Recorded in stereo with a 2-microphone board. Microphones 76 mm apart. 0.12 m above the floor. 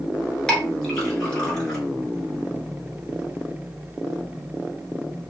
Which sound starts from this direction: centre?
A clink, at 0.5 s.